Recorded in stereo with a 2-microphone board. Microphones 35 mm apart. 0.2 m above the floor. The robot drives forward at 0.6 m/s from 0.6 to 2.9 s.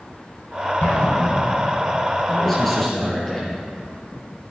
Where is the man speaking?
5° left (ahead or behind), 4.5 m.